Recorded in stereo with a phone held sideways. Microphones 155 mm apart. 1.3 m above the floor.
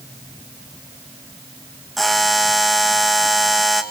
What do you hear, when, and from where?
2.0 s a buzzer: centre (ahead or behind), 1.8 m